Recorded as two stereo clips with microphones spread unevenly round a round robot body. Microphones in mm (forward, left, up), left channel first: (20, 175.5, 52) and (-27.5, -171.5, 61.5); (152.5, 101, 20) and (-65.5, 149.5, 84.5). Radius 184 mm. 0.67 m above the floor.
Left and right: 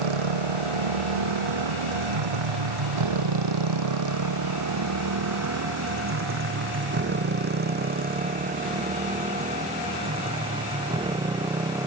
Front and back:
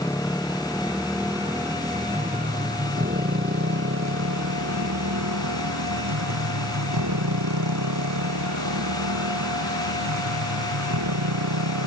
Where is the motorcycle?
95° right; by 11.9 s straight behind.